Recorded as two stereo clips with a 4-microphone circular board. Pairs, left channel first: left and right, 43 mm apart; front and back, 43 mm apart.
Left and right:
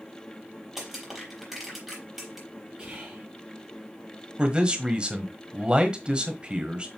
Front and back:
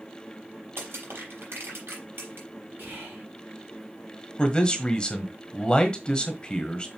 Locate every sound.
0.8 s crushing: 165° right, 4.5 m
2.8 s whispering: 155° right, 4 m
4.4 s a man speaking: 40° right, 1.3 m